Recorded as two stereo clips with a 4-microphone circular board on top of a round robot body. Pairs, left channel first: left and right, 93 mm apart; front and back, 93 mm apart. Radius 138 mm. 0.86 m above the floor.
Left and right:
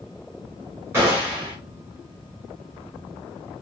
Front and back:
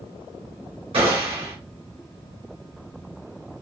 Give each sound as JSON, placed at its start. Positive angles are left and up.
{"t": 0.9, "sound": "a gunshot", "azimuth_deg": -155, "distance_m": 1.8}